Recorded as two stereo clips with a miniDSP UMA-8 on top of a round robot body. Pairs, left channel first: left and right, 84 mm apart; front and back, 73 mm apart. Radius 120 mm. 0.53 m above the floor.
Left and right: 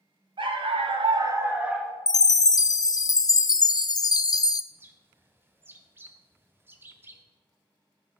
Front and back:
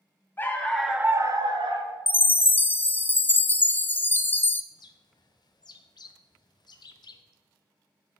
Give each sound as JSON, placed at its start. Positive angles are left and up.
{"t": 0.4, "sound": "a dog barking", "azimuth_deg": -65, "distance_m": 1.2}
{"t": 2.1, "sound": "a chime", "azimuth_deg": 60, "distance_m": 0.5}
{"t": 4.7, "sound": "a bird", "azimuth_deg": -25, "distance_m": 0.7}